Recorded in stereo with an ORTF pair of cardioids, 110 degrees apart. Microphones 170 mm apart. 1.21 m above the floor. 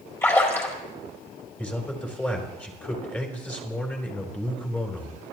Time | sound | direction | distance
0.2 | a splash | 15° left | 4.5 m
1.6 | a man speaking | 10° left | 3.5 m